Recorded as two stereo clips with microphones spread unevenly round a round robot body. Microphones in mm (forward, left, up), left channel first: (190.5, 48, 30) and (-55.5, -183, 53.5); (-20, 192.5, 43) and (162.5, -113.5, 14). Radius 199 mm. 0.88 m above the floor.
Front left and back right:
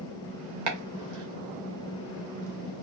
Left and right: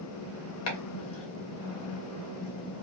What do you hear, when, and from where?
0.7 s chopping: 175° left, 0.5 m